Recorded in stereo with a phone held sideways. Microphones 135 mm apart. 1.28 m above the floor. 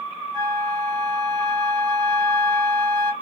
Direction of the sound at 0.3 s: 35° right (ahead or behind).